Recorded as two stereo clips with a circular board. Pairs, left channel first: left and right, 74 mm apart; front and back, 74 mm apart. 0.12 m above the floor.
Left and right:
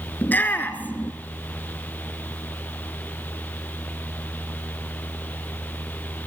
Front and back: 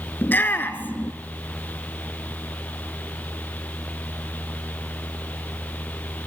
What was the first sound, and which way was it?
A shout, 45° left.